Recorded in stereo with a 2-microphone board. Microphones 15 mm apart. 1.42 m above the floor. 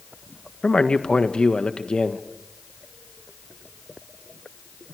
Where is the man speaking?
85° left, 1.6 m.